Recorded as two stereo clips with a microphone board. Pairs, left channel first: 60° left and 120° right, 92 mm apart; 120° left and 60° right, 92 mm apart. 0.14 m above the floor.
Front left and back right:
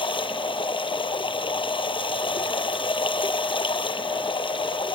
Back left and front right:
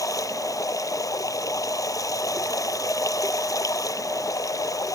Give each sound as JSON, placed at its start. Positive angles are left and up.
{"t": 0.0, "sound": "running water", "azimuth_deg": 75}